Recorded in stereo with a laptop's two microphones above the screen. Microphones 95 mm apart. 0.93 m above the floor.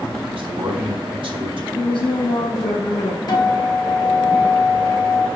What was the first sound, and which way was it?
A man speaking, 70° right (ahead or behind).